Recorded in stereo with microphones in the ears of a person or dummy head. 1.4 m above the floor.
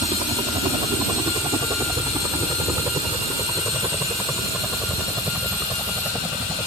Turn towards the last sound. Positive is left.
turn(degrees=-5)  # may be behind; listen again after turning